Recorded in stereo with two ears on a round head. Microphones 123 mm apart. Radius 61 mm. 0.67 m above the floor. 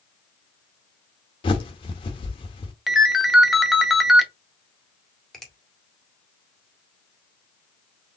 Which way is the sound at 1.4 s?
40° left (ahead or behind).